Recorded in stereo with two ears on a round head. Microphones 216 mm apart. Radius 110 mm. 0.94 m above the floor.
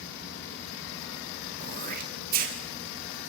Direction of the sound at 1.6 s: 35° right (ahead or behind).